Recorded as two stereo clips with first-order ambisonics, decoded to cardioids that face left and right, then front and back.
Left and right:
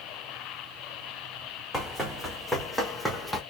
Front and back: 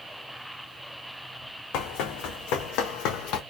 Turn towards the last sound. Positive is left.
turn(degrees=-5)